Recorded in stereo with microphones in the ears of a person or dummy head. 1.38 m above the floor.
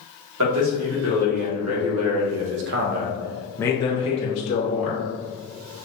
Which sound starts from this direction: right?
A man speaking, at 0.4 s.